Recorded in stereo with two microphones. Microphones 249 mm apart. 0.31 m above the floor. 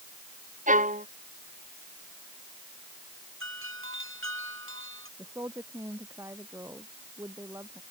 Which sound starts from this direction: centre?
A woman speaking, at 5.2 s.